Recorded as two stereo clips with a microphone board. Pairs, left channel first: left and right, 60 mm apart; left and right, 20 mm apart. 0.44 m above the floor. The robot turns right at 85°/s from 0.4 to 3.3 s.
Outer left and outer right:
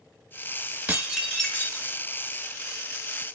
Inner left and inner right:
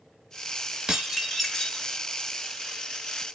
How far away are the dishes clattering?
About 0.9 m.